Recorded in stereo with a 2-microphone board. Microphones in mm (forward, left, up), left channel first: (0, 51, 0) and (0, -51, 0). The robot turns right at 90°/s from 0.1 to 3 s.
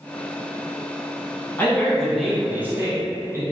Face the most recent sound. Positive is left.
turn(degrees=-30)  # may be behind; listen again after turning